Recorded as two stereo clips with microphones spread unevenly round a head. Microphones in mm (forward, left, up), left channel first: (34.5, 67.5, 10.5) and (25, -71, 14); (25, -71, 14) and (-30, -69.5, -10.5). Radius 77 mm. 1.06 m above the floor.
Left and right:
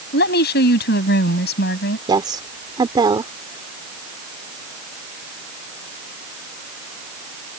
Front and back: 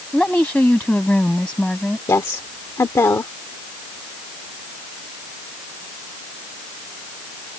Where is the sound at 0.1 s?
80° left.